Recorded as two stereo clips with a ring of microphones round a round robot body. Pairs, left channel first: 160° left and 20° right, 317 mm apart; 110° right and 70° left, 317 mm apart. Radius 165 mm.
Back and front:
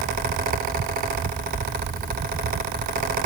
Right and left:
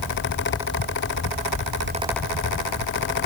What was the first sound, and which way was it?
Only background noise.